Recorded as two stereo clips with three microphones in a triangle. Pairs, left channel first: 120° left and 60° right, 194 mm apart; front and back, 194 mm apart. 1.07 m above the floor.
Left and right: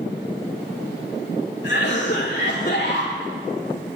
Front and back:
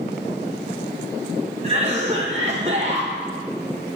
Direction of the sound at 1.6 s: 130° left.